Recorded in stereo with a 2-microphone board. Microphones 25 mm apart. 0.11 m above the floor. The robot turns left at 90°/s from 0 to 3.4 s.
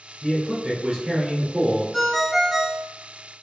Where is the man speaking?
10° right (ahead or behind), 1.8 m; by 1.8 s 5° right (ahead or behind), 1.8 m.